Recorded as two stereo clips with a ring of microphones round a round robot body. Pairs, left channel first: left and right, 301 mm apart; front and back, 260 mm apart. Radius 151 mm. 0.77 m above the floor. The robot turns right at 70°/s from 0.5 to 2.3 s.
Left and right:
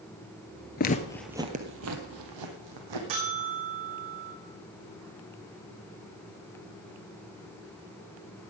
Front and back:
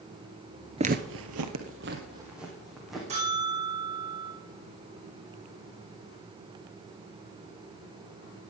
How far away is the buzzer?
About 8 m.